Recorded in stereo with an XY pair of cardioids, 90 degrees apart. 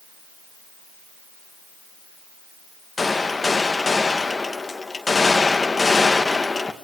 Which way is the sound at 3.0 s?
25° left.